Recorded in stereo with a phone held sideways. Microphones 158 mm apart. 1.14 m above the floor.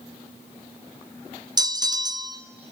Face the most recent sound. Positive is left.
turn(degrees=-25)  # may be behind; listen again after turning